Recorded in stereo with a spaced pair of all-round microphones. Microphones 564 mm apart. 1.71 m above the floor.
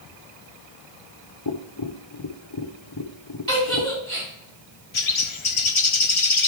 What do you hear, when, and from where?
1.4 s tapping: 40° left (ahead or behind), 0.8 m
3.5 s a giggle: 35° right (ahead or behind), 4.5 m
4.9 s a bird: 55° left (ahead or behind), 0.7 m